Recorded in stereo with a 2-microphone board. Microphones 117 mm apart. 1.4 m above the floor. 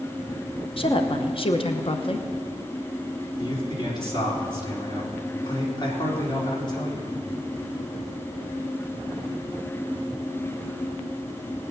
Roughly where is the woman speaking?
Left.